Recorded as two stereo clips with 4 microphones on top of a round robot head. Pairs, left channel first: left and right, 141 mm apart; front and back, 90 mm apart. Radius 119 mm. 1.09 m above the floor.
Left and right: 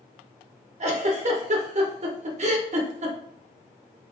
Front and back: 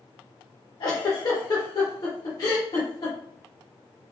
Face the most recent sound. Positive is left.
turn(degrees=-50)